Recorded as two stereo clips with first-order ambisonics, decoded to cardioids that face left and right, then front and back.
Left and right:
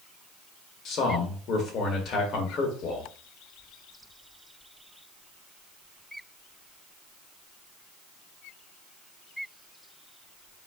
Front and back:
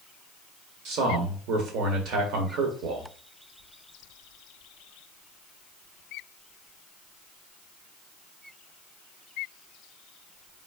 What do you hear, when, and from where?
0.8 s a man speaking: 140° left, 1.7 m